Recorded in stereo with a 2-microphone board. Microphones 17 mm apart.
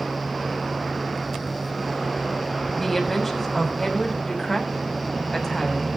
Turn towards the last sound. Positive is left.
turn(degrees=15)  # may be behind; listen again after turning